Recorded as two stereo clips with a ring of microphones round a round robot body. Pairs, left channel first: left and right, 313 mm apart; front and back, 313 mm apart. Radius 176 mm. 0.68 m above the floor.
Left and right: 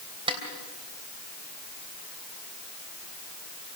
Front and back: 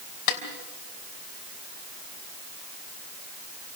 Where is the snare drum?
15° right, 3 m.